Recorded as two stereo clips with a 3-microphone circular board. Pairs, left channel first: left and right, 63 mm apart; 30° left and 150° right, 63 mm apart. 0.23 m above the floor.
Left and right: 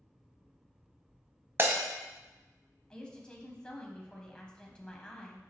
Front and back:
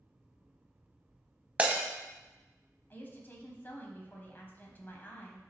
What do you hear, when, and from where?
1.6 s breaking glass: 95° right, 0.7 m
2.9 s a woman speaking: 30° left, 1.1 m